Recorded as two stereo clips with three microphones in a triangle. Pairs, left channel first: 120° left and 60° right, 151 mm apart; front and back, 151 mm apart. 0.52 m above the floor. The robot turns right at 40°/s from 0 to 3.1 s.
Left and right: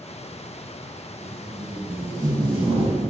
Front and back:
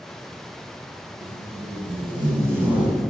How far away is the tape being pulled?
About 0.7 m.